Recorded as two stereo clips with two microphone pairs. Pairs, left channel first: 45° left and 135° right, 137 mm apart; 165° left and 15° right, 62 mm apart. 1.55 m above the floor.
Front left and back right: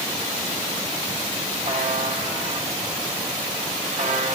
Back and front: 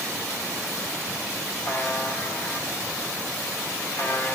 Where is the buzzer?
150° right, 2 m.